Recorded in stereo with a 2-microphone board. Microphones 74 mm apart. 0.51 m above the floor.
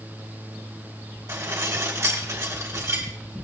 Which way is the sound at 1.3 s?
45° right (ahead or behind).